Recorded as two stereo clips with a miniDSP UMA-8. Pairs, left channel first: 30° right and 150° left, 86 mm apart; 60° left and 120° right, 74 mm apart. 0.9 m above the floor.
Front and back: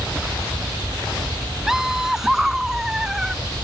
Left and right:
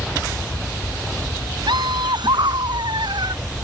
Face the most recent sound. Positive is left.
turn(degrees=-125)